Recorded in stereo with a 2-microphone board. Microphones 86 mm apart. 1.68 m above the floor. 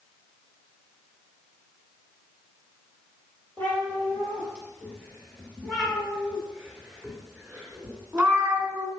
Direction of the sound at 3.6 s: 20° left (ahead or behind).